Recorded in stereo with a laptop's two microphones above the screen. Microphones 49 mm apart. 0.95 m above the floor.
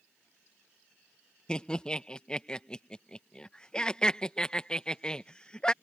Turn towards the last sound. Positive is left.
turn(degrees=20)  # may be behind; listen again after turning